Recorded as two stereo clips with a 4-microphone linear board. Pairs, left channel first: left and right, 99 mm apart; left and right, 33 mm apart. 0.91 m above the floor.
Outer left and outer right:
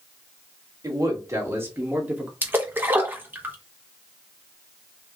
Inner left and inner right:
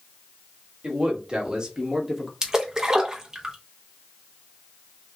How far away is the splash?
About 1.0 m.